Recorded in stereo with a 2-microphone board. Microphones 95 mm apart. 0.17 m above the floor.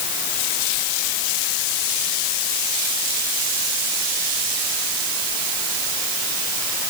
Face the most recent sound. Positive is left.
No sound to turn to.